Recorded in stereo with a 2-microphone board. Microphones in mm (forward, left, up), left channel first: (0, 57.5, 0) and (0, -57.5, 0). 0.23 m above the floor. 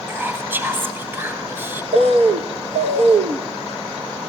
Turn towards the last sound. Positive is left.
turn(degrees=-70)  # may be behind; listen again after turning